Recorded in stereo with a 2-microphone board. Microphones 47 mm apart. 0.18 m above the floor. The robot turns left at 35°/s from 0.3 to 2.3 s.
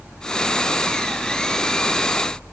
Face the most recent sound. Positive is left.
No sound to turn to.